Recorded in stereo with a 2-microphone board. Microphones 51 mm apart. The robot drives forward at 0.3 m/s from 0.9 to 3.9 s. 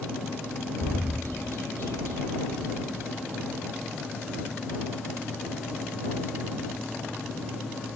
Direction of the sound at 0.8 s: 55° left (ahead or behind).